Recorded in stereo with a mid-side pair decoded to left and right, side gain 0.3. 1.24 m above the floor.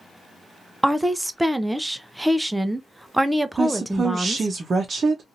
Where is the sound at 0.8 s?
10° right, 0.6 m.